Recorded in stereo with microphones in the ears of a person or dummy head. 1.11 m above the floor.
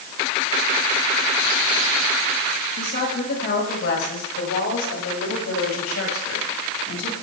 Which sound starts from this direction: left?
A woman speaking, at 2.8 s.